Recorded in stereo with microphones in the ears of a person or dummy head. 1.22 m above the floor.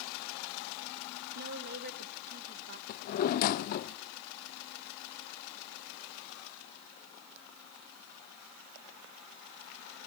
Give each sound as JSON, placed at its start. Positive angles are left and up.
{"t": 1.4, "sound": "a woman speaking", "side_deg": -55, "distance_m": 1.3}
{"t": 2.9, "sound": "a drawer", "side_deg": 40, "distance_m": 0.5}